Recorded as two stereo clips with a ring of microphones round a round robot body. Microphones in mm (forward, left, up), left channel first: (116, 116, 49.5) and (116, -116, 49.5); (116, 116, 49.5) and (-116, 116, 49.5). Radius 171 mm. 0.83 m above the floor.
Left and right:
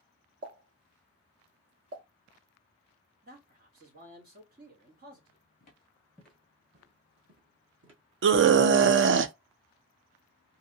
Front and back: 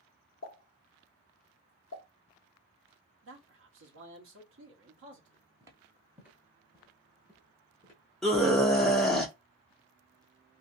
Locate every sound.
0.4 s a pop: 60° right, 1.1 m
3.2 s a man speaking: 145° right, 1.0 m
5.6 s footsteps: 115° left, 0.9 m; by 8.0 s 75° right, 1.5 m
8.2 s a scream: 90° right, 0.5 m